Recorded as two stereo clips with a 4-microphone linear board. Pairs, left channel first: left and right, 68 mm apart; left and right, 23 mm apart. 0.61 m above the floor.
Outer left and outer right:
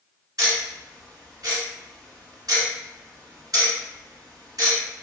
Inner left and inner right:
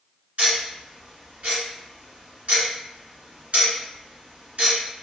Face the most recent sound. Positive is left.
turn(degrees=-65)  # may be behind; listen again after turning